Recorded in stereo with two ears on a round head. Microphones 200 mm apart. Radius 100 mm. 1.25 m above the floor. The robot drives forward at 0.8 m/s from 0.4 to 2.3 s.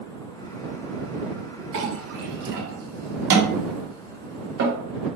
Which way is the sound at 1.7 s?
60° right (ahead or behind).